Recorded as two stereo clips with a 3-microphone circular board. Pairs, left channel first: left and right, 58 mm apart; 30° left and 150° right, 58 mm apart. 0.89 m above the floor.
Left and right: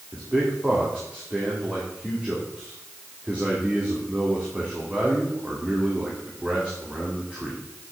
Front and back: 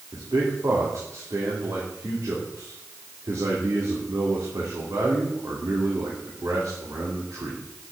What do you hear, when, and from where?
0.1 s a man speaking: 160° right, 2.5 m